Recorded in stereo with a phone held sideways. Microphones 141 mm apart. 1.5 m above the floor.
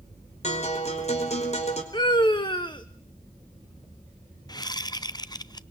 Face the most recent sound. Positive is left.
turn(degrees=30)  # may be behind; listen again after turning